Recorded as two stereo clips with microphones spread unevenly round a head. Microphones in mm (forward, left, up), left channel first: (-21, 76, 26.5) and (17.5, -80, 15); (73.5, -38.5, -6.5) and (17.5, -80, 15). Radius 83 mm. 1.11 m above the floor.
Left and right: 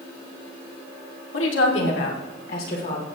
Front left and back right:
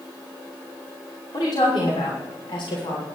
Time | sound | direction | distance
1.3 | a woman speaking | 100° left | 2.5 m